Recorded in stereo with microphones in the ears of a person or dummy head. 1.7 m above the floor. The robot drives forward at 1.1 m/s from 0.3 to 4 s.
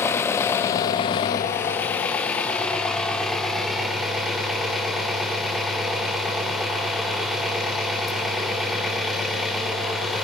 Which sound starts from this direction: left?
An engine running, at 0.0 s.